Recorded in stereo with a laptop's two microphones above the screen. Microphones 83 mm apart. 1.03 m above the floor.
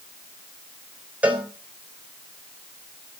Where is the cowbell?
15° right (ahead or behind), 3 m.